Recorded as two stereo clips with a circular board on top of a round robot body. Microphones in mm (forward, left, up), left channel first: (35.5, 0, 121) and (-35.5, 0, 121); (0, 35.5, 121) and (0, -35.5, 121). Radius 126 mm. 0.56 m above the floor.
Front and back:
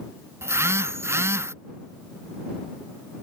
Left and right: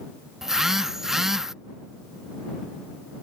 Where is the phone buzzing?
170° right.